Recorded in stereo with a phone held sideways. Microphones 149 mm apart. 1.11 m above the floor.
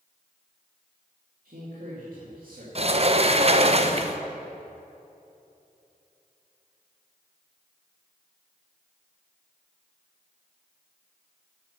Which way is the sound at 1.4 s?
70° right (ahead or behind).